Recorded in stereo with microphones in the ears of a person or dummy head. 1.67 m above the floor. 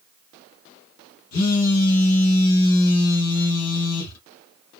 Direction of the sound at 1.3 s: 90° left.